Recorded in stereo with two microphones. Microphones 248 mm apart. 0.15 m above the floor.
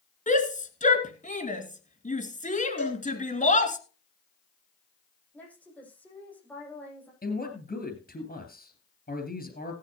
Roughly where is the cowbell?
Left.